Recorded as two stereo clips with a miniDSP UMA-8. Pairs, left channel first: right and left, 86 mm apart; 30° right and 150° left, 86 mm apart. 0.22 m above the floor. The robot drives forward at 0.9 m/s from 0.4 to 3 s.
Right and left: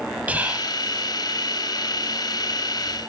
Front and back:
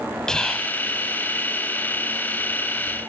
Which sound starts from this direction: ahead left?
Whispering, at 0.3 s.